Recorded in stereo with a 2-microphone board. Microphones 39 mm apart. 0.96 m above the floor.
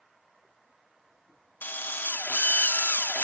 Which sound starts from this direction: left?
A drill, at 1.6 s.